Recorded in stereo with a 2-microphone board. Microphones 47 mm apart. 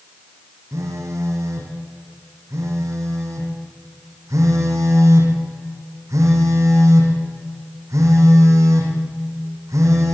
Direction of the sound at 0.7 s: 85° right.